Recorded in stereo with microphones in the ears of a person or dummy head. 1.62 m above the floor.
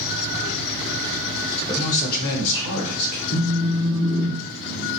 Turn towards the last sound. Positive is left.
turn(degrees=80)